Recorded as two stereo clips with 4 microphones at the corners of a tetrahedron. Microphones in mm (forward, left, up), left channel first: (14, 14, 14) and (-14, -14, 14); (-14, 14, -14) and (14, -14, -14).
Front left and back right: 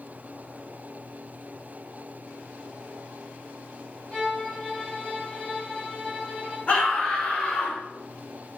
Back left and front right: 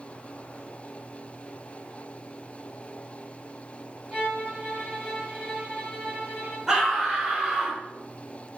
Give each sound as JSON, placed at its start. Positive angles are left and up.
{"t": 4.1, "sound": "a violin", "azimuth_deg": 5, "distance_m": 1.3}
{"t": 6.7, "sound": "a scream", "azimuth_deg": 20, "distance_m": 0.9}